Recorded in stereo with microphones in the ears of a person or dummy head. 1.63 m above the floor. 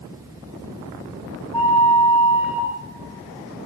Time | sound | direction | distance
1.5 | a flute | 5° right (ahead or behind) | 6 m